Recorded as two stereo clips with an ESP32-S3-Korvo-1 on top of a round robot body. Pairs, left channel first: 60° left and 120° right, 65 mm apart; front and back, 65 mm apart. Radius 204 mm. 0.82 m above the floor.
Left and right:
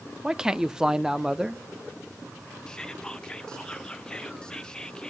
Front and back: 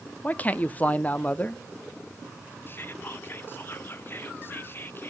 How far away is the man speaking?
About 0.7 m.